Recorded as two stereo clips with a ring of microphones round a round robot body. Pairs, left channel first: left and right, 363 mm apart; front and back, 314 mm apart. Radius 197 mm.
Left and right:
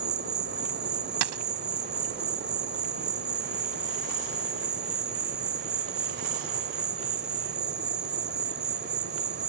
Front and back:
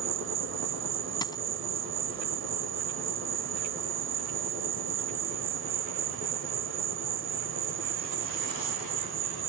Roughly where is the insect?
Behind right.